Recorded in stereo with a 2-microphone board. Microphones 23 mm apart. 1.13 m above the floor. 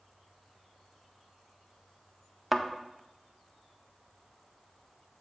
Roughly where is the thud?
Centre.